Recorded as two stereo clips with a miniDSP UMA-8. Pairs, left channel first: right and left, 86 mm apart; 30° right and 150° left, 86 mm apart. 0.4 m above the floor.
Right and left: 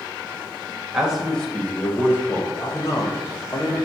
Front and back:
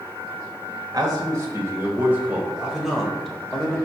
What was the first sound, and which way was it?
A man speaking, 175° left.